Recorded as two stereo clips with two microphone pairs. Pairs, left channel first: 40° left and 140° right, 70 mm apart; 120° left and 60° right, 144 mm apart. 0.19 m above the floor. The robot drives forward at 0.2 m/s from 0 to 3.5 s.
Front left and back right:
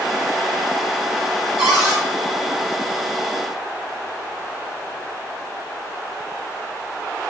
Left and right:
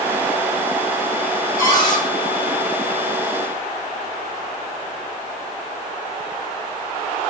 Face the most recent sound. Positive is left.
turn(degrees=145)